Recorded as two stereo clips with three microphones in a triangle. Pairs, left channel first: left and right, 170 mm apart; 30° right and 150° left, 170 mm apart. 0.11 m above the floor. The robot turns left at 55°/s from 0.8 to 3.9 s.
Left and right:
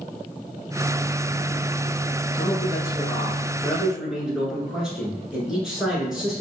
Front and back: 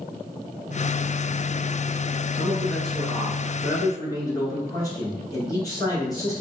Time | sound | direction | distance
2.3 | a man speaking | 80° left | 1.2 m